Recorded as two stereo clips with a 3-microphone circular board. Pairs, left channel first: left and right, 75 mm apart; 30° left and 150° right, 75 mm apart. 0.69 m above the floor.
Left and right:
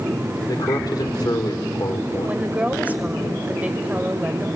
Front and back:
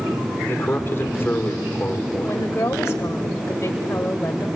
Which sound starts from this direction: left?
A man speaking, at 0.5 s.